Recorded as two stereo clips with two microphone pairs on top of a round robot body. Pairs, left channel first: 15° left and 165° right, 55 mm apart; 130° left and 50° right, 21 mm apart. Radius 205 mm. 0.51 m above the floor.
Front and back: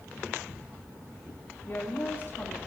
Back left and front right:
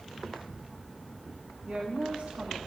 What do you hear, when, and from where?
1.7 s a woman speaking: 35° right, 1.7 m